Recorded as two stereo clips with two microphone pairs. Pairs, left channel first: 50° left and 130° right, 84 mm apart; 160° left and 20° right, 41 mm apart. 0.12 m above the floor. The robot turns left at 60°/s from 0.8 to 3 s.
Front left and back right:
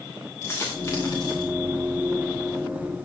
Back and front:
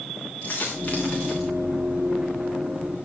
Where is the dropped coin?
115° left, 5 m; by 1.5 s 70° left, 5 m.